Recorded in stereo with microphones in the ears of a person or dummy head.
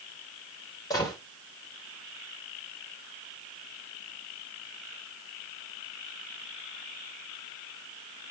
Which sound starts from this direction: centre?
A gunshot, at 0.9 s.